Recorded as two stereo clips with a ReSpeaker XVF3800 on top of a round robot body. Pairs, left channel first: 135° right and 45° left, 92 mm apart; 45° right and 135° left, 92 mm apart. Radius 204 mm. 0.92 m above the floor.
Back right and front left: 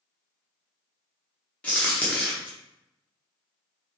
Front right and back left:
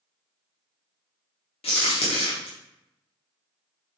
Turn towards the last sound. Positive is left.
turn(degrees=-60)